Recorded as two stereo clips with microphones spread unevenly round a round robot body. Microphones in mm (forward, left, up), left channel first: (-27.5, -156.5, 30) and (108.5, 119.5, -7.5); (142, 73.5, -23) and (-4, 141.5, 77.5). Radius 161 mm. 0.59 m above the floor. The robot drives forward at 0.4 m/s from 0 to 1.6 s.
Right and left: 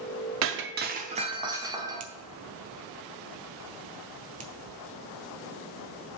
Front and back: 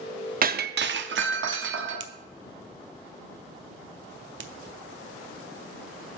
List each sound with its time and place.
0.4 s breaking glass: 90° left, 0.5 m; by 2.1 s 140° left, 0.7 m
2.0 s a finger snap: 125° left, 0.7 m